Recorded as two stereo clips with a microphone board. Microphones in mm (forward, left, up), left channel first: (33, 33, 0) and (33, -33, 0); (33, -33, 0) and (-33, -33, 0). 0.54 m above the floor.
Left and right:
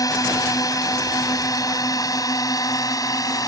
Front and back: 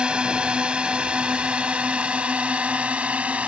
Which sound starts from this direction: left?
A drone, at 0.0 s.